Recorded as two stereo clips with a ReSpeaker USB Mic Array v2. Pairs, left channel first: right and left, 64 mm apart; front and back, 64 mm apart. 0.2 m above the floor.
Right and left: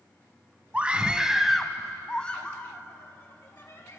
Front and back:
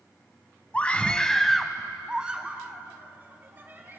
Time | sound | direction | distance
0.7 | a scream | 40° left | 1.0 m